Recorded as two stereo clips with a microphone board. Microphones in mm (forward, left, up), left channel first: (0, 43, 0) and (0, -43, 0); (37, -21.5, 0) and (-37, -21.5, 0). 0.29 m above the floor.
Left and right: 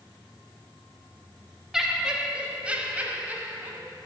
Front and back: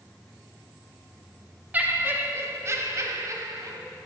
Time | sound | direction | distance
1.7 | laughter | 170° right | 0.9 m